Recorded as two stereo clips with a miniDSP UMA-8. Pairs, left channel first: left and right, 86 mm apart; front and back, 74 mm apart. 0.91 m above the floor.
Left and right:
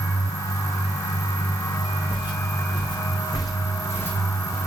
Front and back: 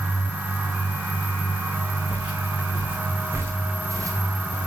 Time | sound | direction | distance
2.1 | footsteps | 105° left | 4 m